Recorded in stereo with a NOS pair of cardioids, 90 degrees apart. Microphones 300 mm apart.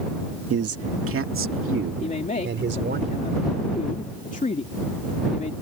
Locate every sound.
0.5 s a man speaking: 50° right; by 3.0 s 35° right
2.0 s a man speaking: 25° left